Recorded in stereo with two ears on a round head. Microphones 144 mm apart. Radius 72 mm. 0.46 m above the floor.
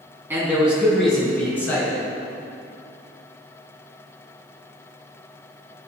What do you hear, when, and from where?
0.3 s a man speaking: 15° right (ahead or behind), 3.5 m; by 2.0 s 20° left (ahead or behind), 4.5 m